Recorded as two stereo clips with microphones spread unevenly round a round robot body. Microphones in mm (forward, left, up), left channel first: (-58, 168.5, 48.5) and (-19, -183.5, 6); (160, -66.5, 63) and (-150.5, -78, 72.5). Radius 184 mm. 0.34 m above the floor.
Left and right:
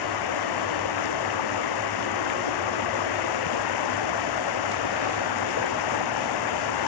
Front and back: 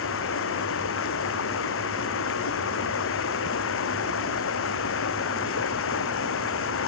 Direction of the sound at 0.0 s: 60° left.